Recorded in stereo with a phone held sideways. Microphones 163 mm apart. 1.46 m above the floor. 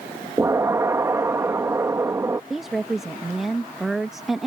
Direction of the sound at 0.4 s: 20° right (ahead or behind).